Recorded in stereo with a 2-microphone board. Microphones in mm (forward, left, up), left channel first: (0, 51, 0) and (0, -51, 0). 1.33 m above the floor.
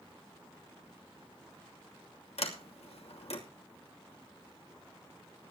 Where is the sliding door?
85° left, 2.5 m.